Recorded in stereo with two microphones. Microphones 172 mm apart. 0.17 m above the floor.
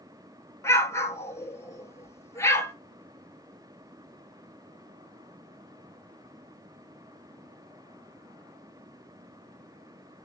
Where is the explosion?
15° left (ahead or behind), 0.8 m.